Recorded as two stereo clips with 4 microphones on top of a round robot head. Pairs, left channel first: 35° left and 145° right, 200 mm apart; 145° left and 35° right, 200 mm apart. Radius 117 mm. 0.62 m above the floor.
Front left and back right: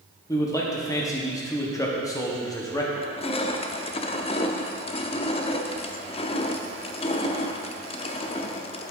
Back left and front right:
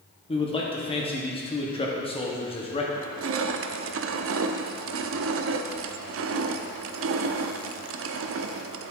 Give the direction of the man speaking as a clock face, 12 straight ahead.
9 o'clock.